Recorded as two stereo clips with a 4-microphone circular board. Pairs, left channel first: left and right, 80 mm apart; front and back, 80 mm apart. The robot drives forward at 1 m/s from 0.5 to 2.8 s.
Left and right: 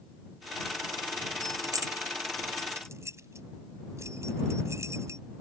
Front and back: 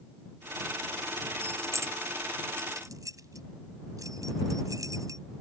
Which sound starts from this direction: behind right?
Keys jangling, at 1.4 s.